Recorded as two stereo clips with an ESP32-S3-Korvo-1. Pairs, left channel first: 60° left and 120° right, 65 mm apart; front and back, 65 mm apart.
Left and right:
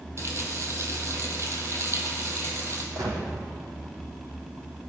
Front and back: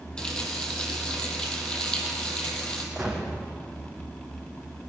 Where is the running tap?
75° right, 3 m.